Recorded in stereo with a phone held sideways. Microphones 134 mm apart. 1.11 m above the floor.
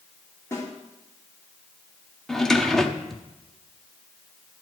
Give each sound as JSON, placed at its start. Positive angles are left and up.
{"t": 0.5, "sound": "a snare drum", "side_deg": 20, "distance_m": 3.5}
{"t": 2.3, "sound": "a drawer", "side_deg": 5, "distance_m": 0.8}